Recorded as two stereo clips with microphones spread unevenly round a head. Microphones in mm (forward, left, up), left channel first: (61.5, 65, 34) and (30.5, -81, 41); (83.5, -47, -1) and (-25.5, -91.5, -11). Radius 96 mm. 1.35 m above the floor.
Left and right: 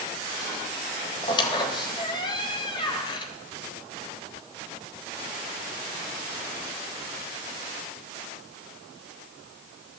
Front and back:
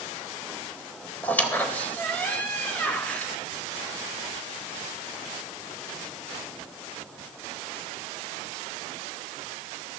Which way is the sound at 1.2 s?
65° left.